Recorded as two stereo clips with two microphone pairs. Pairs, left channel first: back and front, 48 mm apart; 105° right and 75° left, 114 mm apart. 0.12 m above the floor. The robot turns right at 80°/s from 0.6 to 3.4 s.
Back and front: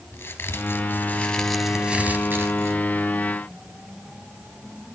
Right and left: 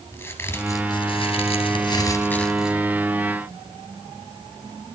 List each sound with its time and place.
0.1 s a crack: 170° right, 2.5 m; by 2.8 s 5° left, 2.5 m